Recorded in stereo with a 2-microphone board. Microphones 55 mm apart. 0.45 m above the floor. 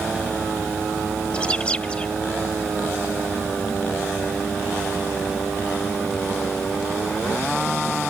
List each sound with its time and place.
1.3 s a bird: 20° left (ahead or behind)